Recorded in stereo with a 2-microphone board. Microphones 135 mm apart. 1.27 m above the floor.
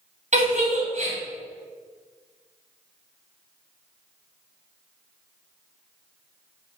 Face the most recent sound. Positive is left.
turn(degrees=-60)  # may be behind; listen again after turning